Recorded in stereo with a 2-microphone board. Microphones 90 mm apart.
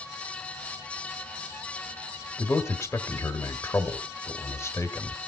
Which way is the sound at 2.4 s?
30° left (ahead or behind).